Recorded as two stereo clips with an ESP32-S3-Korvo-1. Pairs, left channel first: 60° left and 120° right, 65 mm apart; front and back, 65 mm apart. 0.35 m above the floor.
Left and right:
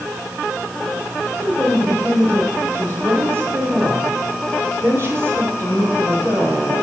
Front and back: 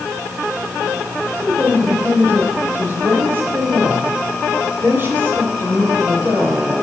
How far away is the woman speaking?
About 1.2 m.